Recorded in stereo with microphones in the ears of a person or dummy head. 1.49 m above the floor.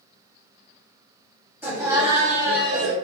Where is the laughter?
10° right (ahead or behind), 1.1 m; by 3.0 s 70° right (ahead or behind), 0.8 m.